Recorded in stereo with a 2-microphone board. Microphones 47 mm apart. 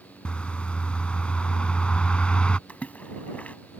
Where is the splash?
35° left (ahead or behind).